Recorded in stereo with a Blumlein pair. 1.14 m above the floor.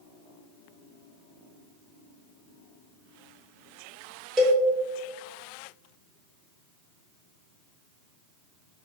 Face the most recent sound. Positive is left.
turn(degrees=-20)